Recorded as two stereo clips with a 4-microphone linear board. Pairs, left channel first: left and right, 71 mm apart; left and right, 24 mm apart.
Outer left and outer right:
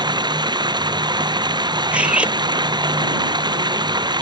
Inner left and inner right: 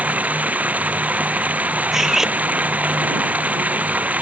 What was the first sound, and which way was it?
Running water, 75° right (ahead or behind).